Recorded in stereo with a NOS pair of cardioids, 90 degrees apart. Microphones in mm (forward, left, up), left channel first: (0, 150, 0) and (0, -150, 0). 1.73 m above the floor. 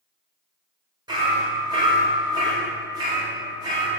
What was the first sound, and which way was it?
Hammering, 15° right.